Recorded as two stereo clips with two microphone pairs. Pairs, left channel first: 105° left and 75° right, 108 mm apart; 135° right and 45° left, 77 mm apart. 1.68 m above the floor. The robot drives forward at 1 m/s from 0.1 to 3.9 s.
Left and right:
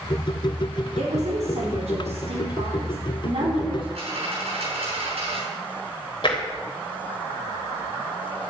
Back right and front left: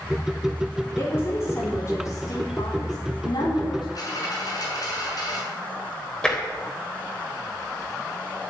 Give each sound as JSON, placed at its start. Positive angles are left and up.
{"t": 1.0, "sound": "a woman speaking", "azimuth_deg": -75, "distance_m": 4.5}
{"t": 4.0, "sound": "a dropped coin", "azimuth_deg": -95, "distance_m": 7.0}
{"t": 6.2, "sound": "tapping", "azimuth_deg": 145, "distance_m": 3.5}